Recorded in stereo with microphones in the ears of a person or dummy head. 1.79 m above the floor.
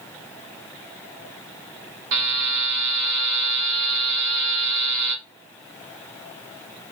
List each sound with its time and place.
2.1 s a buzzer: 70° right (ahead or behind), 0.9 m